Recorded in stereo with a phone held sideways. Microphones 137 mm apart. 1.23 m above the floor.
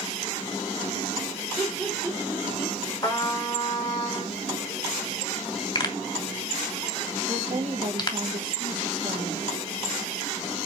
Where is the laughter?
Centre (ahead or behind), 6.5 m.